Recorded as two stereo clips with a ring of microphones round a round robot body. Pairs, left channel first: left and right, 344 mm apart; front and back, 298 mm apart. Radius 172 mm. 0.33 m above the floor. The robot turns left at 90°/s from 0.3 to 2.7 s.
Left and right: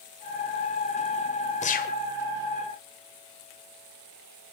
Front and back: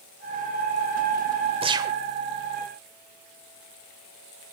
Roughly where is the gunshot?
Behind left.